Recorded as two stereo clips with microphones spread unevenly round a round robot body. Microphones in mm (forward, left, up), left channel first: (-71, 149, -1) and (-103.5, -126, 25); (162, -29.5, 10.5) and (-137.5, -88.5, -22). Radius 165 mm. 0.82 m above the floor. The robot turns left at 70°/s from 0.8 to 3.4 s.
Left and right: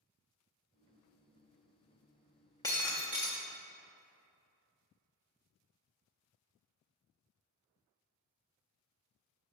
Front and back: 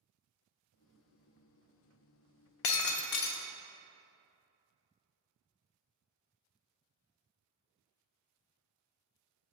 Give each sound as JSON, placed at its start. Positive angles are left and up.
{"t": 2.6, "sound": "breaking glass", "azimuth_deg": 5, "distance_m": 0.5}